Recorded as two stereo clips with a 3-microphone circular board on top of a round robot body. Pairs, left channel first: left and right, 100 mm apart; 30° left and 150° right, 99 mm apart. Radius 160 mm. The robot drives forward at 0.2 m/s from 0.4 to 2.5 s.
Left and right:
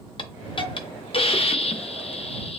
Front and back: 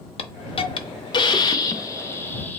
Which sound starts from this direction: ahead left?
A hiss, at 0.2 s.